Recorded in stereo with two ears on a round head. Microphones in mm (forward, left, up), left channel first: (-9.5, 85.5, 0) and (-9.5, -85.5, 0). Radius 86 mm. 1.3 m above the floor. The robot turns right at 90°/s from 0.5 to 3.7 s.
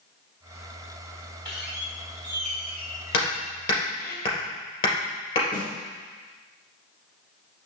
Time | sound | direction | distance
1.4 | a squeak | 155° right | 2 m
3.1 | hammering | 75° left (ahead or behind) | 3 m
5.5 | a snare drum | 45° left (ahead or behind) | 3 m